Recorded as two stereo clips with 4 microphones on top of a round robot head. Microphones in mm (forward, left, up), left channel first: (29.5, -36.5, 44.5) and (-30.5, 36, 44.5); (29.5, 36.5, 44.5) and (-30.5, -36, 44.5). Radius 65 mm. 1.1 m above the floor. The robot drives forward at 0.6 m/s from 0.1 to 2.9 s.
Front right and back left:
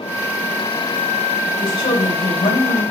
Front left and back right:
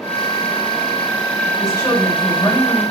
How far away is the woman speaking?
About 3.5 m.